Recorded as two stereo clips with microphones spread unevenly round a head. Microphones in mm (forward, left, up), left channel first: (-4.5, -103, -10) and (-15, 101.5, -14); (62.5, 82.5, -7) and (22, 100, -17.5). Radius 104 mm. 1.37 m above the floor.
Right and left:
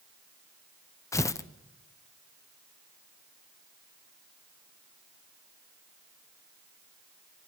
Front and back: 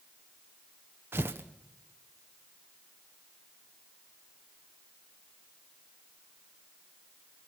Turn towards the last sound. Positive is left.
turn(degrees=-165)